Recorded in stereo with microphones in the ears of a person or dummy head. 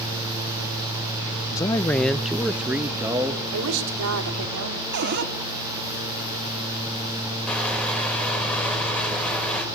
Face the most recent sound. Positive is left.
turn(degrees=5)  # may be behind; listen again after turning